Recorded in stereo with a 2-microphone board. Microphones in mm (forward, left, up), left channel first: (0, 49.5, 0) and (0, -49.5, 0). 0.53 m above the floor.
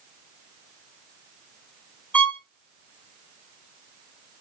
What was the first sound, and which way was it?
A violin, 15° left (ahead or behind).